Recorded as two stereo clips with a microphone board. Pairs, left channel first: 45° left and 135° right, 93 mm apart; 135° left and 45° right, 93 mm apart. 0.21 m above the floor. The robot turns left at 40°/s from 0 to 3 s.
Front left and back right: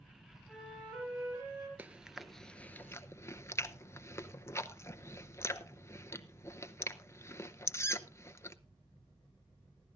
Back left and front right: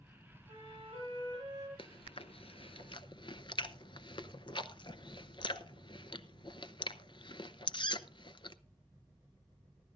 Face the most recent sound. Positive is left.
turn(degrees=105)